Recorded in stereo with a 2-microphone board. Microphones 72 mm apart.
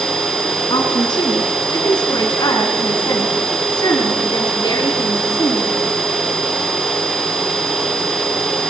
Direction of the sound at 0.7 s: 80° left.